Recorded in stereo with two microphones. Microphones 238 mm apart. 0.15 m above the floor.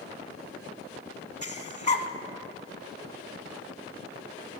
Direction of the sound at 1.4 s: 30° left (ahead or behind).